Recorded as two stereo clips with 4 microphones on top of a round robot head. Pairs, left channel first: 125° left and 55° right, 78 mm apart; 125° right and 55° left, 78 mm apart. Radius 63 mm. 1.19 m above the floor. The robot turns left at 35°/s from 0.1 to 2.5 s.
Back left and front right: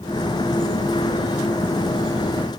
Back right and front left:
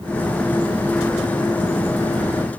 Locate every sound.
Only background noise.